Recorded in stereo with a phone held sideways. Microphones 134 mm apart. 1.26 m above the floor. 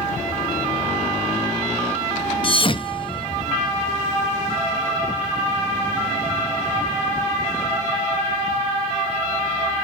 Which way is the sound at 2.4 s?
40° left (ahead or behind).